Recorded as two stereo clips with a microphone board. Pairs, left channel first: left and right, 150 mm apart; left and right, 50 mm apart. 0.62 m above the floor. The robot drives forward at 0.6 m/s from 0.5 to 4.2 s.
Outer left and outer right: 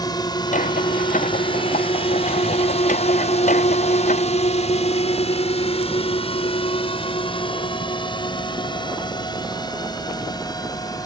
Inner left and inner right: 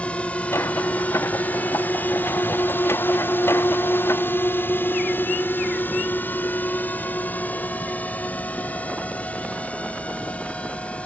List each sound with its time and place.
0.0 s a drone: 25° left (ahead or behind)